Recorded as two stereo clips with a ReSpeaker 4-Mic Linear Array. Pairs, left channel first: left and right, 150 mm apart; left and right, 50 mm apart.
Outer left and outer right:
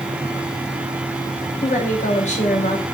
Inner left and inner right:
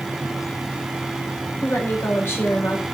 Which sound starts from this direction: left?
A woman speaking, at 1.6 s.